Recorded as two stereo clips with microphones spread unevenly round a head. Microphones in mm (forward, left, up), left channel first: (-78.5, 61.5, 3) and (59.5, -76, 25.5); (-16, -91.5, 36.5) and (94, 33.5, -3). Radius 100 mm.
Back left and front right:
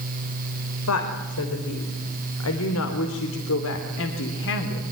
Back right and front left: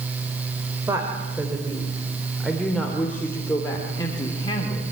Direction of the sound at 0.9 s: 125° left.